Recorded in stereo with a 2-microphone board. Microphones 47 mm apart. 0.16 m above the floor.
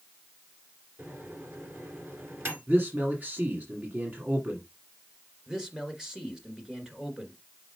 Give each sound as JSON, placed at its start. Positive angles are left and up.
{"t": 1.0, "sound": "a microwave", "side_deg": -55, "distance_m": 2.0}
{"t": 2.7, "sound": "a man speaking", "side_deg": -40, "distance_m": 1.7}
{"t": 5.5, "sound": "a man speaking", "side_deg": -15, "distance_m": 2.0}